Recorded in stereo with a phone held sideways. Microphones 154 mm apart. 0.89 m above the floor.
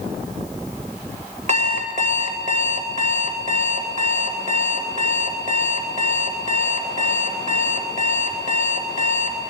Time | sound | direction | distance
1.5 | an alarm clock | 50° right (ahead or behind) | 1.7 m